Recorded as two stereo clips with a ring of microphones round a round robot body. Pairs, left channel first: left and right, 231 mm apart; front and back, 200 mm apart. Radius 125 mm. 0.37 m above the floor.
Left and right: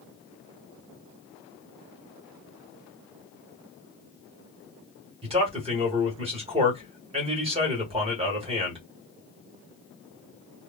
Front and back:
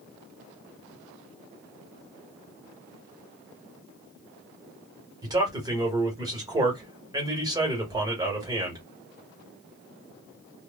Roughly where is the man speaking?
Behind right.